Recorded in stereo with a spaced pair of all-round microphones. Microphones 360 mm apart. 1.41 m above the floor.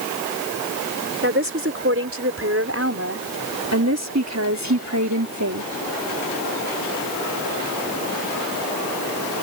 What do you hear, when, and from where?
1.2 s a woman speaking: 35° right (ahead or behind); by 5.7 s 55° right (ahead or behind)